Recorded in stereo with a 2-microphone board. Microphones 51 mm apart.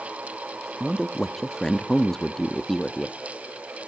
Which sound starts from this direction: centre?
A man speaking, at 0.8 s.